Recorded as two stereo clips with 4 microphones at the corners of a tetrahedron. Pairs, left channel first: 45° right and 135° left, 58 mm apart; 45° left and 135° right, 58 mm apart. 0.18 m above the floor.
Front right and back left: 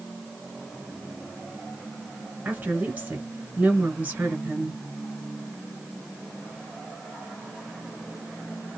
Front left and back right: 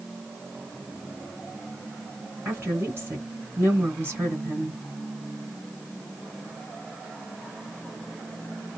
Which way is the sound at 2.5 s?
175° right.